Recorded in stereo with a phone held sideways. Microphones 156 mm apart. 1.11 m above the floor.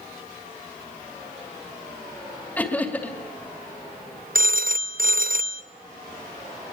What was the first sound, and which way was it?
Laughter, 10° left (ahead or behind).